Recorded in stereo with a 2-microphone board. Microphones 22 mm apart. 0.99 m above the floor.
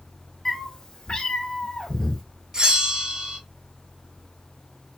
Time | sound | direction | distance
0.5 | a cat meowing | 20° left (ahead or behind) | 1.1 m
2.5 | a bell | 30° right (ahead or behind) | 0.8 m